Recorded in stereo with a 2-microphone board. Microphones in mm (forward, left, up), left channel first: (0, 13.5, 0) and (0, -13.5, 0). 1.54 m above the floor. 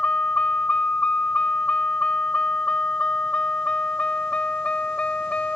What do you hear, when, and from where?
0.0 s a vehicle: 60° left (ahead or behind); by 5.5 s 50° left (ahead or behind)